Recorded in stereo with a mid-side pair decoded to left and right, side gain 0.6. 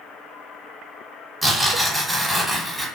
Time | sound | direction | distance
1.4 | tearing paper | 5° right | 1.2 m